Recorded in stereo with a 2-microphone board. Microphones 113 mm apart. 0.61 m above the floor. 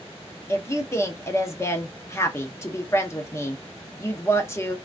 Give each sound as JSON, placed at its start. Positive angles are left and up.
{"t": 0.5, "sound": "a woman speaking", "side_deg": 25, "distance_m": 0.7}